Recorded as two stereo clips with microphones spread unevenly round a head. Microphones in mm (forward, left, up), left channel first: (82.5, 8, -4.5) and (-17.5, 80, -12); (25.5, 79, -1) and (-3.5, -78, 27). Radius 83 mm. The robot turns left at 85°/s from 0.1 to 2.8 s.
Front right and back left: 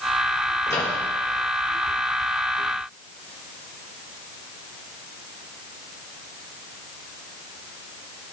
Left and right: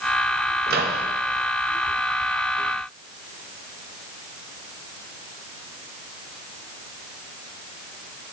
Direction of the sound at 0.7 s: 100° right.